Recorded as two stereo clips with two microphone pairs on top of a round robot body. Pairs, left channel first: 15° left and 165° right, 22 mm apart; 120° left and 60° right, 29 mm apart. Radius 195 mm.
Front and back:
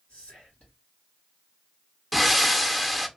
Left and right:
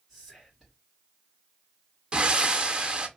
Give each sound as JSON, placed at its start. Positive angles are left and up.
{"t": 0.1, "sound": "whispering", "azimuth_deg": 30, "distance_m": 1.7}
{"t": 2.1, "sound": "breathing", "azimuth_deg": -80, "distance_m": 0.8}